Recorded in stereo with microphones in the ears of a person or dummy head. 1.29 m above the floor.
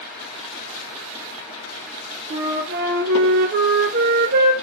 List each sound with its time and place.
2.3 s a flute: 55° right (ahead or behind), 0.9 m